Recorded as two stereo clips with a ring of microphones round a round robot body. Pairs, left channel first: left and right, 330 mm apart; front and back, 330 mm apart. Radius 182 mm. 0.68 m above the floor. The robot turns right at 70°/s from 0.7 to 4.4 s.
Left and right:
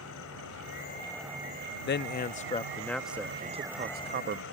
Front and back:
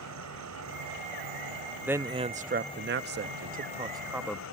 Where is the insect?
145° left; by 4.5 s 40° left.